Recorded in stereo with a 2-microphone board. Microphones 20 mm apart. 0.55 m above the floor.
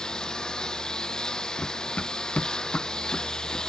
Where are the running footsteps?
80° left.